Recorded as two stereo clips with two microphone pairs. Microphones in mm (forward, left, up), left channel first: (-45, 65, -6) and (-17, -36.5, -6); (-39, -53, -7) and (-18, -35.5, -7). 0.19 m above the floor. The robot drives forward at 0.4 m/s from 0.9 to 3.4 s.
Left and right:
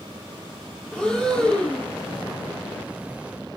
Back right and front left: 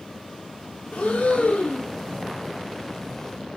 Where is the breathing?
175° right, 1.0 m.